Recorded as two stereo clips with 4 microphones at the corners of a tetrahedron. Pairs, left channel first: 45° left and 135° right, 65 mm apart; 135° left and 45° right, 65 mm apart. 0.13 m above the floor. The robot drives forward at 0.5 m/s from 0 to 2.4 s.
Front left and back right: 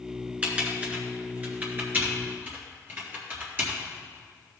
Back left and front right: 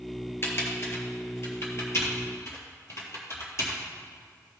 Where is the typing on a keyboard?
165° left, 1.9 m; by 3.8 s 170° left, 2.5 m.